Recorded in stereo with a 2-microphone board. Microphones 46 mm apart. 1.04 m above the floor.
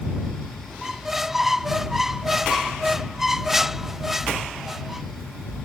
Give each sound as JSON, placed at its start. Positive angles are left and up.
{"t": 0.8, "sound": "a squeak", "side_deg": -5}